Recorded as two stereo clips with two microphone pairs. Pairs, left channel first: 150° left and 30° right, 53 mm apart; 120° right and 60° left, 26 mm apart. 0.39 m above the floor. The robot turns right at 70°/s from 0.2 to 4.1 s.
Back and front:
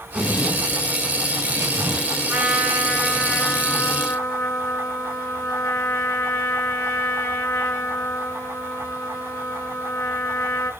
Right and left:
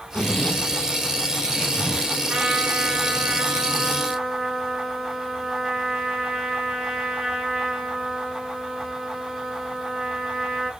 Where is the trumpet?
25° left, 6 m; by 10.7 s 155° left, 6 m.